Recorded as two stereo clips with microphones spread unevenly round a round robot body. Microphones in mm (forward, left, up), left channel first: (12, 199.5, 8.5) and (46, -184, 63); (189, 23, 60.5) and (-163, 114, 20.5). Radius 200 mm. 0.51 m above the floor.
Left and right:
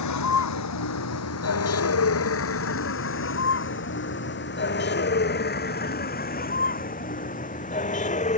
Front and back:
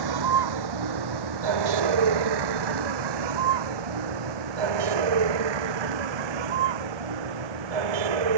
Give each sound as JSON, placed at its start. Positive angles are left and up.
{"t": 0.0, "sound": "a vehicle", "azimuth_deg": 145}